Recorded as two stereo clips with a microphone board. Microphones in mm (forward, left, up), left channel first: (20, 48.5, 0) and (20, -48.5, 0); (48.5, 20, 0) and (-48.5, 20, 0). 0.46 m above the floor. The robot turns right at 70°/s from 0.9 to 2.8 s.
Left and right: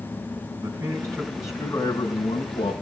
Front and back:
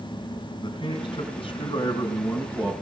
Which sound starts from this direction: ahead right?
A man speaking, at 0.6 s.